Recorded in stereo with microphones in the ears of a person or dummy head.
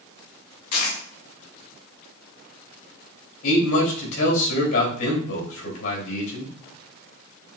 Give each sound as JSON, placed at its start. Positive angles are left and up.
{"t": 0.7, "sound": "a dropped coin", "side_deg": 50, "distance_m": 2.0}
{"t": 3.4, "sound": "a man speaking", "side_deg": 75, "distance_m": 3.0}